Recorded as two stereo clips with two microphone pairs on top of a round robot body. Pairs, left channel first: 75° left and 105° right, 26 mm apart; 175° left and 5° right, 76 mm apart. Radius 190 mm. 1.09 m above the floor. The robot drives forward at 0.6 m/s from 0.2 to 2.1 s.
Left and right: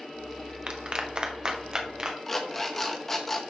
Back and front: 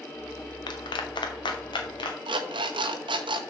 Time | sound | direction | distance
0.7 | a clap | 160° right | 0.8 m
2.3 | an alarm clock | 5° right | 0.8 m